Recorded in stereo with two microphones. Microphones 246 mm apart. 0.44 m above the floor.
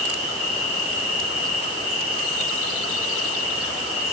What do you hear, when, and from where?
0.0 s an insect: 70° left (ahead or behind), 2 m